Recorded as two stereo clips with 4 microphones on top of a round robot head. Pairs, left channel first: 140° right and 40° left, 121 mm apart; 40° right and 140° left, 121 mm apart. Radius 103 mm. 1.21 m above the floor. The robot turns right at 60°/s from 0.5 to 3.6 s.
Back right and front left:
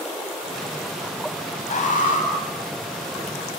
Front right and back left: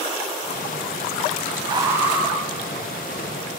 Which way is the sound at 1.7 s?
165° right.